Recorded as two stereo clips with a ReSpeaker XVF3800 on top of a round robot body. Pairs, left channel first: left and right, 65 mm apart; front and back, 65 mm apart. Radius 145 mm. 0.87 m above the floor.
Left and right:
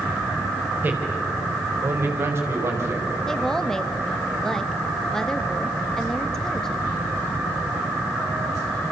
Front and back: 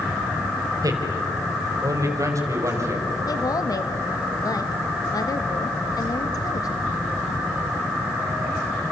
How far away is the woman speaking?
About 1.7 m.